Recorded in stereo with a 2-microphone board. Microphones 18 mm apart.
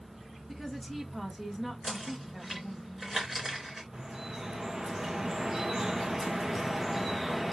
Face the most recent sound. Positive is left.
turn(degrees=-15)  # may be behind; listen again after turning